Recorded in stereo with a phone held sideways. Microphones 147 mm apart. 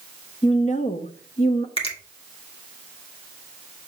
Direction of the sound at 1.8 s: 40° left (ahead or behind).